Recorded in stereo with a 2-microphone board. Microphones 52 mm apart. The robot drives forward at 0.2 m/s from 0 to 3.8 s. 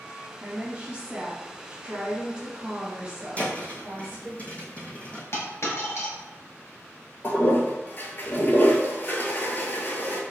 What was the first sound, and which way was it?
A woman speaking, 25° right (ahead or behind).